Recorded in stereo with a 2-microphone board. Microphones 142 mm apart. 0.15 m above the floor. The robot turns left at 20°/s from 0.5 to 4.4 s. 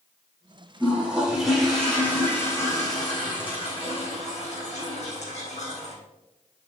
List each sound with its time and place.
0.8 s a toilet flushing: 165° right, 4 m; by 6.0 s 120° left, 4 m